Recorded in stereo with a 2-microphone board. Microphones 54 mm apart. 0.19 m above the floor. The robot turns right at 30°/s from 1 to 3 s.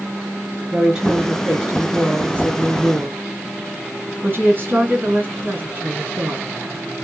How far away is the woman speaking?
About 2.0 m.